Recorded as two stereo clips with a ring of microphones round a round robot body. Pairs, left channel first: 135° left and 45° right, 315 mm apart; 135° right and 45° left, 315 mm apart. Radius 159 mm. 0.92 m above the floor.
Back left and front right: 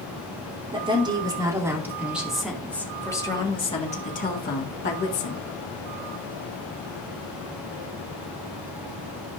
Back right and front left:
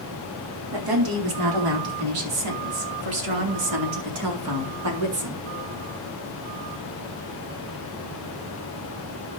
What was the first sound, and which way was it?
A woman speaking, 30° left.